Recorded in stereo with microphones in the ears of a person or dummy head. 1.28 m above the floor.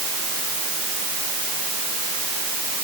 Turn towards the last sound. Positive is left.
No sound to turn to.